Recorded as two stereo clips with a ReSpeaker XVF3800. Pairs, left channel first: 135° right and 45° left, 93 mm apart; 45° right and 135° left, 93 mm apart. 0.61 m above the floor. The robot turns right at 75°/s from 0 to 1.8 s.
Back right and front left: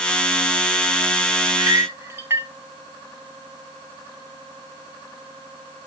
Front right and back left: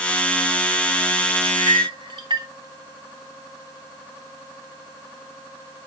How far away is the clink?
About 1.1 m.